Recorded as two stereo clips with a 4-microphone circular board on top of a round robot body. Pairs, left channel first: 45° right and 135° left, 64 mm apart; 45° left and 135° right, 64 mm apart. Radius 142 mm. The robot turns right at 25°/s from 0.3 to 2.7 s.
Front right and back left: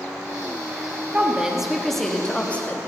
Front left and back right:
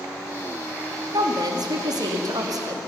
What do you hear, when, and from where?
1.1 s a woman speaking: 150° right, 2.5 m; by 2.8 s 110° right, 2.5 m